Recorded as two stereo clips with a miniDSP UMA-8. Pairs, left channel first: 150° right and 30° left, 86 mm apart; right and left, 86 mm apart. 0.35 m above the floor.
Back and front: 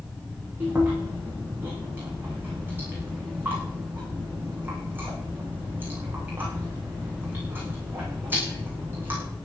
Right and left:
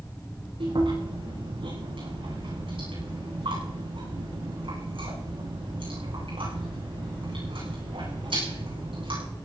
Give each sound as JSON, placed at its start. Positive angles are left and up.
{"t": 0.6, "sound": "chewing", "azimuth_deg": 100, "distance_m": 8.5}